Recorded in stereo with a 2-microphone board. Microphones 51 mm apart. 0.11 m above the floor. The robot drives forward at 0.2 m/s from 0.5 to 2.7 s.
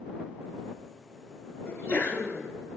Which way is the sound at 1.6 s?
35° left (ahead or behind).